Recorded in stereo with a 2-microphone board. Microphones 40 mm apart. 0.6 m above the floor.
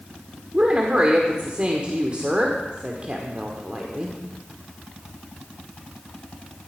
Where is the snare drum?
I don't hear a snare drum.